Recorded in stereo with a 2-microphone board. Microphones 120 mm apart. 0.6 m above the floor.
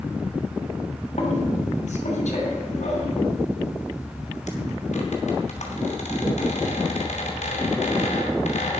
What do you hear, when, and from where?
1.2 s a squeak: 80° left, 2.5 m